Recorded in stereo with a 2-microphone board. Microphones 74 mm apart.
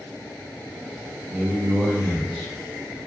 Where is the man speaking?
20° right (ahead or behind), 1.1 m; by 2.5 s centre (ahead or behind), 1.7 m.